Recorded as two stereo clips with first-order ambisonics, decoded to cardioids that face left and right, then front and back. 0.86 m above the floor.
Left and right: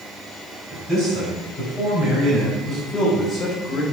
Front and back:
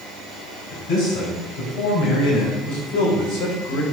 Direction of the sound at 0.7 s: 15° right.